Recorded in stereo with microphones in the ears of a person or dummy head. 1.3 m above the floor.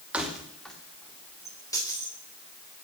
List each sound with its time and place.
0.1 s keys jangling: 10° right (ahead or behind), 2.5 m; by 2.1 s 20° left (ahead or behind), 4 m